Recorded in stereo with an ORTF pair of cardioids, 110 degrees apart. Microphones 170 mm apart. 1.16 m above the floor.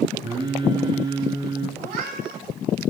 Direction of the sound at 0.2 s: 30° right.